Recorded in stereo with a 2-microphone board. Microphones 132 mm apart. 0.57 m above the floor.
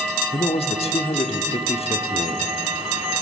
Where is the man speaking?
50° left (ahead or behind), 1.0 m.